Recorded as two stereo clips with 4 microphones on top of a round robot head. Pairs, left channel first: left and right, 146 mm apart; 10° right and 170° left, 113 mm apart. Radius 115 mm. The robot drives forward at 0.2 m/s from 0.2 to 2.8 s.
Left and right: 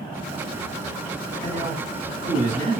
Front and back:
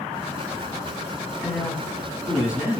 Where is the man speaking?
105° right, 1.7 m; by 2.8 s 115° right, 1.8 m.